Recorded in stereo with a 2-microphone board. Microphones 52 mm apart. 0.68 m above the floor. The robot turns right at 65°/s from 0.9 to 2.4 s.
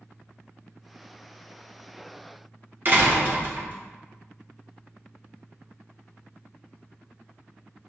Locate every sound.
2.9 s a door slam: 40° right (ahead or behind), 1.1 m